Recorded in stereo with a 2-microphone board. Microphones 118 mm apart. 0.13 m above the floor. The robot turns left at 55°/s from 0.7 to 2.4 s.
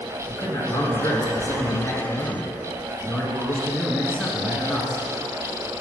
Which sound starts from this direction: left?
A man speaking, at 0.3 s.